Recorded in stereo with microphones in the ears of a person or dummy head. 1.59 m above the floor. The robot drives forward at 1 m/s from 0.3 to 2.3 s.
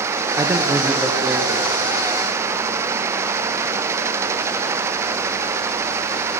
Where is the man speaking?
15° right (ahead or behind), 1.0 m; by 1.7 s 5° right (ahead or behind), 2.5 m.